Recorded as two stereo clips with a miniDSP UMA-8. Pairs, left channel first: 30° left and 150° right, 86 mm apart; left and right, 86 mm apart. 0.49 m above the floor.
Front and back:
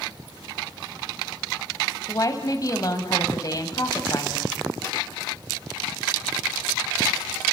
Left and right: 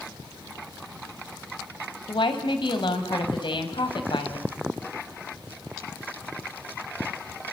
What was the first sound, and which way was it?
A woman speaking, 75° left.